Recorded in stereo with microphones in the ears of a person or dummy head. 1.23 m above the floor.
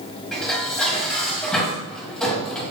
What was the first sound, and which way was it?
Dishes clattering, 5° left (ahead or behind).